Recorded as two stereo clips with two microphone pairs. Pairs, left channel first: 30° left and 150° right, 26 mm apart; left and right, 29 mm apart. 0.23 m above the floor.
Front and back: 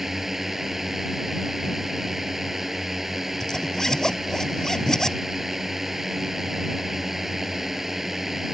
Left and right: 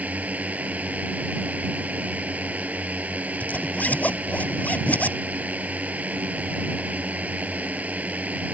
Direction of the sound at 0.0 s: 70° right.